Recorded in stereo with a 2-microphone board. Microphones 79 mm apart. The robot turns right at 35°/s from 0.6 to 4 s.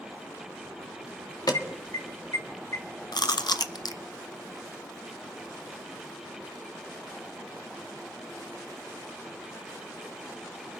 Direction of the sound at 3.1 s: 65° left (ahead or behind).